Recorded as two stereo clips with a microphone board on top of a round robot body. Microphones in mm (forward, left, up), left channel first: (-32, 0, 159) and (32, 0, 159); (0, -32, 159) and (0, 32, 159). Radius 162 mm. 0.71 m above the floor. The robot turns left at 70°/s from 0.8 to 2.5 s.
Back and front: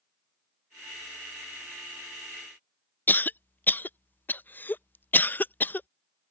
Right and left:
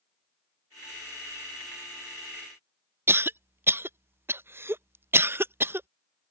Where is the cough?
130° left.